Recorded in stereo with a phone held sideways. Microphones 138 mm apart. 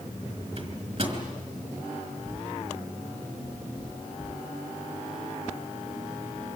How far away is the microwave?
About 4 m.